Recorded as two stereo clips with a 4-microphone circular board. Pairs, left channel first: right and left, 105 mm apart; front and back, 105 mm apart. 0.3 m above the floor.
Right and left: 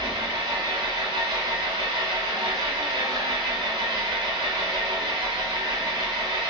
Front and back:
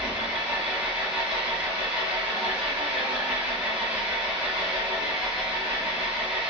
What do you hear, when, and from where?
0.0 s an engine running: 105° left, 1.2 m